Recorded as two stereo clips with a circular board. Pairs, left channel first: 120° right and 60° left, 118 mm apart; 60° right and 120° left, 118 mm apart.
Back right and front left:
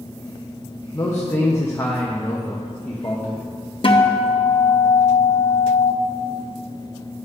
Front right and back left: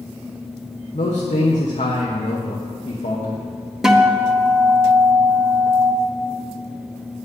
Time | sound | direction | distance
0.9 | a man speaking | 50° right | 1.0 m
3.8 | a guitar | 155° right | 0.7 m